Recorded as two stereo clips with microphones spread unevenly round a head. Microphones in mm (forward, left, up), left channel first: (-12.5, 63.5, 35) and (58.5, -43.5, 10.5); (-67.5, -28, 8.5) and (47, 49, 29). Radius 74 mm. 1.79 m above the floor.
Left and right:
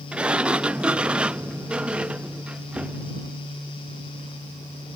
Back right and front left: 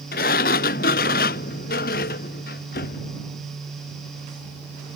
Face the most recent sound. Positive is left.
turn(degrees=-150)